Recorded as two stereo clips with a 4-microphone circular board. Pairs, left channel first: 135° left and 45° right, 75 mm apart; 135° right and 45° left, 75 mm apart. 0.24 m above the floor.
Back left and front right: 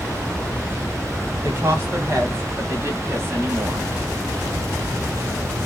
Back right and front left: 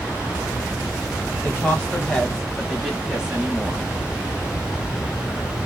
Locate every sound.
1.4 s a woman speaking: 85° right, 1.6 m; by 3.9 s 10° right, 1.5 m